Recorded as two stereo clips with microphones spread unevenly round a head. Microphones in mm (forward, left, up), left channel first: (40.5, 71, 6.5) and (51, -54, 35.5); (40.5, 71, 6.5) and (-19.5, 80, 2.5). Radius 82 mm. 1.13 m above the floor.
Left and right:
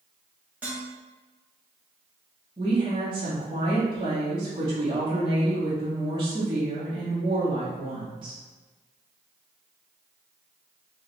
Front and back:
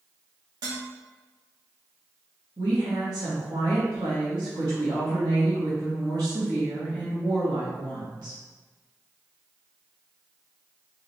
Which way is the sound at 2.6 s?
150° right.